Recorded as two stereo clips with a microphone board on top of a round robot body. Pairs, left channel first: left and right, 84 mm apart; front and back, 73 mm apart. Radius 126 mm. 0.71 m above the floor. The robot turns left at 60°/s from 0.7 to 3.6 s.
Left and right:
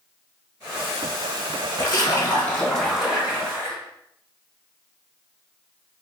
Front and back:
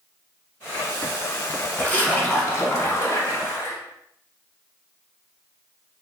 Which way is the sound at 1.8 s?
70° left.